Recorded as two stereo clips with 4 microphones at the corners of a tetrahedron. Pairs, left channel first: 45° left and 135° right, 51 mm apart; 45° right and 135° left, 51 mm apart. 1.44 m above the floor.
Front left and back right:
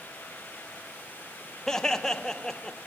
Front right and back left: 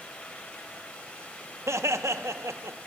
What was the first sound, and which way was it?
Laughter, 125° left.